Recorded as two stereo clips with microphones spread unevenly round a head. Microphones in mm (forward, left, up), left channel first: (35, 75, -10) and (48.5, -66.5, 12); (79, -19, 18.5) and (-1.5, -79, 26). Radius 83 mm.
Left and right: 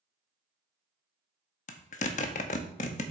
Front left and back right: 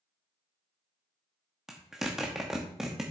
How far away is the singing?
I don't hear singing.